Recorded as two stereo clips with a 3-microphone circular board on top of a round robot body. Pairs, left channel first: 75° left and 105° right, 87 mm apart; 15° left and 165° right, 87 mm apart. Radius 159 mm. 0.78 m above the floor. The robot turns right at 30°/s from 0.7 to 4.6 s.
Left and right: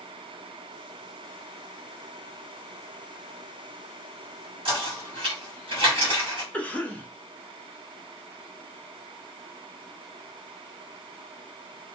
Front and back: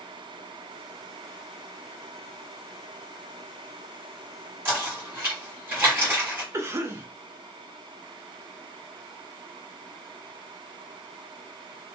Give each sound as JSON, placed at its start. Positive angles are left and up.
{"t": 4.7, "sound": "knocking", "azimuth_deg": -105, "distance_m": 1.6}
{"t": 6.5, "sound": "a cough", "azimuth_deg": 145, "distance_m": 0.8}